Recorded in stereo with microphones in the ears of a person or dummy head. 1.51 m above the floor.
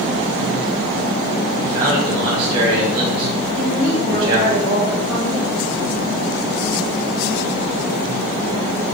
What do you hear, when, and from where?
1.6 s a man speaking: 30° right (ahead or behind), 2.5 m
3.6 s a woman speaking: 10° left (ahead or behind), 1.5 m